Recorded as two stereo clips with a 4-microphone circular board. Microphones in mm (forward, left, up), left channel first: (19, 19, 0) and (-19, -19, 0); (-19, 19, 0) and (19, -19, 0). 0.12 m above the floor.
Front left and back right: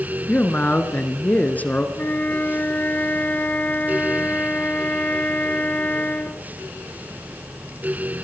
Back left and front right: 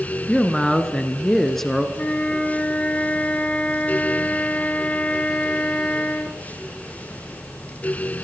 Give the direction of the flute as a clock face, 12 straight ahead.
9 o'clock.